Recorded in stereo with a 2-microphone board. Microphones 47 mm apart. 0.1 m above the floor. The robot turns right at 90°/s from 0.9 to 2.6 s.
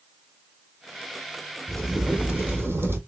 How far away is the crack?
About 1.6 m.